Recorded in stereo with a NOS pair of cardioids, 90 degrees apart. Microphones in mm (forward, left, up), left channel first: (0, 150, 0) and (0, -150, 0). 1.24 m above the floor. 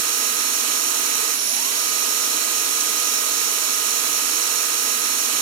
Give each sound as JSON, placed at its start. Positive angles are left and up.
{"t": 0.0, "sound": "a machine running", "azimuth_deg": -60, "distance_m": 1.7}